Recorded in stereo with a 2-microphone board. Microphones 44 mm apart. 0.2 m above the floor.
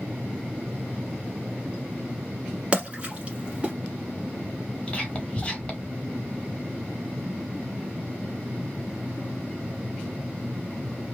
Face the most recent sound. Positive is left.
turn(degrees=25)  # may be behind; listen again after turning